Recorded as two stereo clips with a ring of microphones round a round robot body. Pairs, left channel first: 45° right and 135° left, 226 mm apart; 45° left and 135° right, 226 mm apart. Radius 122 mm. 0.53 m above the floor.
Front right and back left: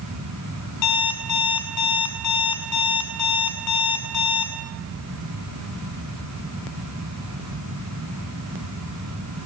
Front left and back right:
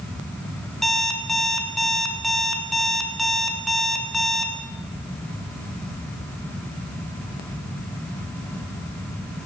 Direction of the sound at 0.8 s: 45° right.